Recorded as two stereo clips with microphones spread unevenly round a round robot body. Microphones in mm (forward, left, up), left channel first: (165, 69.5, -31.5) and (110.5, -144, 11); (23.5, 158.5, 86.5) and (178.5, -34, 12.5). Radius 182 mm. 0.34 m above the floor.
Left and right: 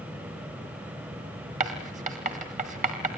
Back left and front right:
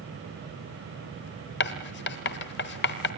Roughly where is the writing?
Behind.